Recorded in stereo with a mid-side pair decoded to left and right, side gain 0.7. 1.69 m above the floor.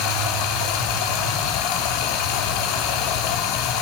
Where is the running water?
70° left, 4.5 m.